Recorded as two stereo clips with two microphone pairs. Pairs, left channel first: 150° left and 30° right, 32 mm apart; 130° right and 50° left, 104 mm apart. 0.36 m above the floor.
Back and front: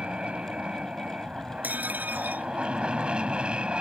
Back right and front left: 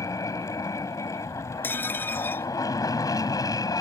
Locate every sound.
0.0 s an aircraft: 80° right; by 3.8 s 85° right
1.6 s dishes clattering: 60° right